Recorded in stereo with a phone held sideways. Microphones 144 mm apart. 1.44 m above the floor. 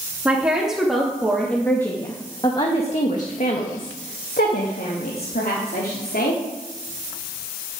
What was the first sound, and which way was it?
A woman speaking, 10° right (ahead or behind).